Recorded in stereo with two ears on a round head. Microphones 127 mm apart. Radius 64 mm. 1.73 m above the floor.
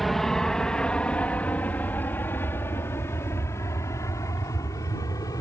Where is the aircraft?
Centre (ahead or behind); by 5.4 s 25° left (ahead or behind).